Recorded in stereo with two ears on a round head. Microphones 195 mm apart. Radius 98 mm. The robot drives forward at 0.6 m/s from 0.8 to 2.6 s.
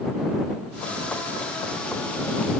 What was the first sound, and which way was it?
Only background noise.